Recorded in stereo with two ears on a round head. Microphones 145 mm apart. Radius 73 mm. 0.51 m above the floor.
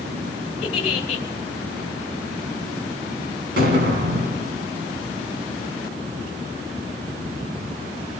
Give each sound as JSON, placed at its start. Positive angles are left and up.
{"t": 0.6, "sound": "a giggle", "side_deg": 40, "distance_m": 2.5}
{"t": 3.6, "sound": "an explosion", "side_deg": -70, "distance_m": 3.0}